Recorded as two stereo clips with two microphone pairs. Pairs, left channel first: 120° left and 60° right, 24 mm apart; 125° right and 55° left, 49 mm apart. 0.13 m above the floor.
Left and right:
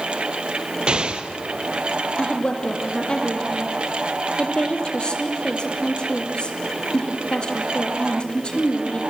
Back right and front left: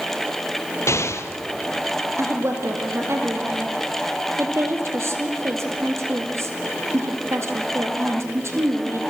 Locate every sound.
0.9 s an explosion: 110° right, 1.2 m
2.2 s a woman speaking: 75° left, 3 m